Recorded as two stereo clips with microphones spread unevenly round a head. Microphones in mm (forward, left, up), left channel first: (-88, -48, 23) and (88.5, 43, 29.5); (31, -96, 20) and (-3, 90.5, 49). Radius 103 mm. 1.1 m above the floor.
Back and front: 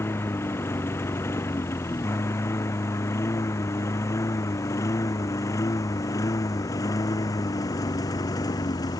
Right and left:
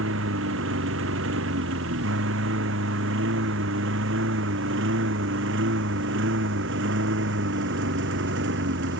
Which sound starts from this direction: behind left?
A lawn mower, at 0.0 s.